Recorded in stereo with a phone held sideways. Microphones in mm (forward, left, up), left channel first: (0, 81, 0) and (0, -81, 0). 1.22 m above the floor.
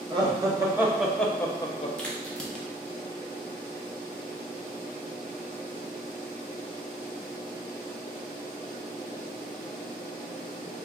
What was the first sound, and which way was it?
Laughter, 30° right (ahead or behind).